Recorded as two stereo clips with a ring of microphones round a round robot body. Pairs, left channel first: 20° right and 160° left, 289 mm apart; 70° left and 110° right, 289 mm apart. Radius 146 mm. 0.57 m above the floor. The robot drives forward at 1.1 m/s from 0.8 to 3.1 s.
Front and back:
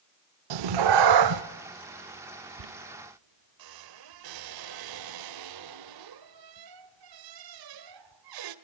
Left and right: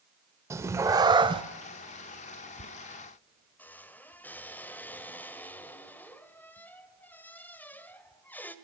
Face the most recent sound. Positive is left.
turn(degrees=150)